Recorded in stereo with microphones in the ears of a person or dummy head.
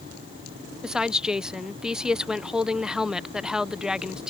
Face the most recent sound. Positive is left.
turn(degrees=0)  # may be behind; listen again after turning